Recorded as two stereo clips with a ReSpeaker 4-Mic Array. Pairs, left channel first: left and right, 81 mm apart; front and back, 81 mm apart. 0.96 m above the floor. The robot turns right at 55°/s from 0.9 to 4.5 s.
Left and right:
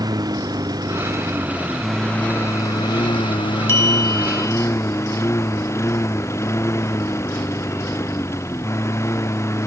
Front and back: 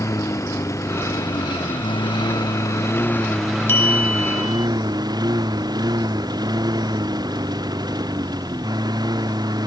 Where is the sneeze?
I don't hear a sneeze.